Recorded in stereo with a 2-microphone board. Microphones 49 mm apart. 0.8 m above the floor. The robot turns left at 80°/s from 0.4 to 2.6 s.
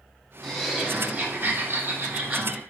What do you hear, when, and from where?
0.4 s laughter: 5° left, 1.1 m; by 2.6 s 165° right, 1.1 m